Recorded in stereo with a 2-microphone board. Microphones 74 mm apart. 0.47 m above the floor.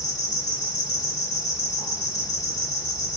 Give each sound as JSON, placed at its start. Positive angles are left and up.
{"t": 0.0, "sound": "an insect", "side_deg": 50, "distance_m": 1.3}